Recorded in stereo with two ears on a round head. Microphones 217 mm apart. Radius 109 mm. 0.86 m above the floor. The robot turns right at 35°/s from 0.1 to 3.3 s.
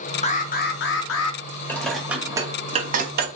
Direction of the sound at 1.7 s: 10° left (ahead or behind).